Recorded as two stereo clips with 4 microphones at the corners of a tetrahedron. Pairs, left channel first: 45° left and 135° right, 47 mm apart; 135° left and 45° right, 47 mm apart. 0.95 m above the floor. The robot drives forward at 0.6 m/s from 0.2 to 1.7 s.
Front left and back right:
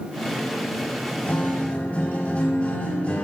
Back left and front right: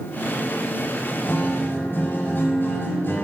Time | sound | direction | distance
1.2 | a guitar | 95° left | 5 m